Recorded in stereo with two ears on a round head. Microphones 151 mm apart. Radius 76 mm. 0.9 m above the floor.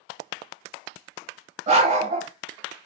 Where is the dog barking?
40° right (ahead or behind), 1.0 m.